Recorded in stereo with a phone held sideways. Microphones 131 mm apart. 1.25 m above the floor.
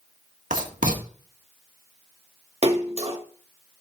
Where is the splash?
55° right (ahead or behind), 1.7 m.